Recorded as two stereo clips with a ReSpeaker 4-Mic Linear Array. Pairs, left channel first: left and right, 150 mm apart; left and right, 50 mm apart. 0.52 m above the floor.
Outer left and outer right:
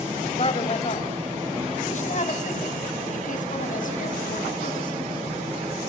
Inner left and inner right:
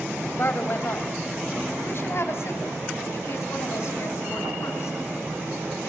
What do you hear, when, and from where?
0.4 s a woman speaking: 40° left (ahead or behind), 3 m; by 5.0 s 65° left (ahead or behind), 5.5 m